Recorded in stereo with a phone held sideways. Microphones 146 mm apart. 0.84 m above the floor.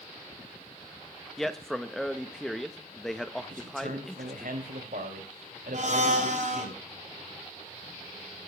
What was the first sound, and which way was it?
A man speaking, centre (ahead or behind).